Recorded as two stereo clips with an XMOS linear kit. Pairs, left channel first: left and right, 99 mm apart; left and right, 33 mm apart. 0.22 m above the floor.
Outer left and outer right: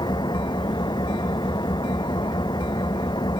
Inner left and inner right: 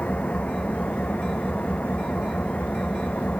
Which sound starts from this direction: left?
An engine running, at 0.0 s.